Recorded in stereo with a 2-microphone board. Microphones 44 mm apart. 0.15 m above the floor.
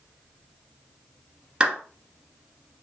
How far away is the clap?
About 1.3 m.